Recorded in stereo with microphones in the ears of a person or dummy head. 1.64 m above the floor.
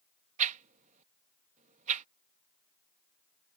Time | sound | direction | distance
0.4 | a whoosh | 40° right (ahead or behind) | ?